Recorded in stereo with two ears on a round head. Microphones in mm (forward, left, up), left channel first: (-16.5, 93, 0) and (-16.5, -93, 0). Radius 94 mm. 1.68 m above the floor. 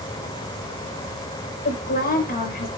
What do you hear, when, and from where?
1.6 s a woman speaking: 45° left (ahead or behind), 6 m